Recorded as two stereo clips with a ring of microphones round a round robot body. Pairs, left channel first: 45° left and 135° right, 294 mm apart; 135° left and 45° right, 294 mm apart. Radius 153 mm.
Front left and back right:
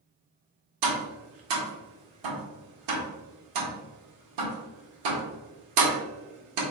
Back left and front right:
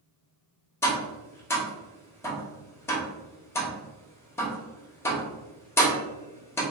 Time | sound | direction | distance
0.8 | tapping | 145° right | 1.2 m